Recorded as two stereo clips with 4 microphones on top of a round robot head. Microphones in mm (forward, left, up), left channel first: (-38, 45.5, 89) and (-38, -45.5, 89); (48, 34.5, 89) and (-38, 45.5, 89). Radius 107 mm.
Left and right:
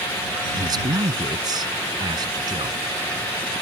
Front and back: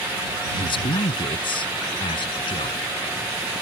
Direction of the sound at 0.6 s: 40° right.